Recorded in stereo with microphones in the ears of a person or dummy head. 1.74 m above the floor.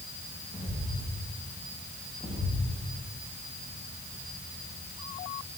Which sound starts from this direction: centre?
Footsteps, at 0.5 s.